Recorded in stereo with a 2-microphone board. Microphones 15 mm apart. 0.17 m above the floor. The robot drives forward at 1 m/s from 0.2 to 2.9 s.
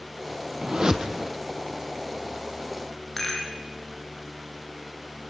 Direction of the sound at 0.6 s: 50° right (ahead or behind).